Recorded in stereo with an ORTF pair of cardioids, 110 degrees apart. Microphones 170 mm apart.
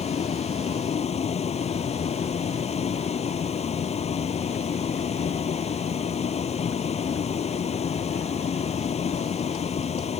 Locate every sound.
0.0 s a vehicle: 35° left